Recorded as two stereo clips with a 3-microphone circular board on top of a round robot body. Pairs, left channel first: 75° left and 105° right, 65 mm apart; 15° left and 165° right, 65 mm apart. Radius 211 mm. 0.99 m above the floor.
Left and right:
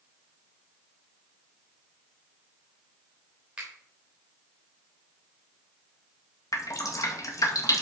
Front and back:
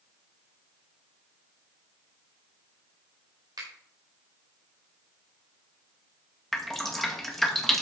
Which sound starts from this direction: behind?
A finger snap, at 3.6 s.